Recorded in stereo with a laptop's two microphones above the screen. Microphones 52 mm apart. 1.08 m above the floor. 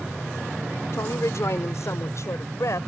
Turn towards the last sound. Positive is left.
turn(degrees=70)  # may be behind; listen again after turning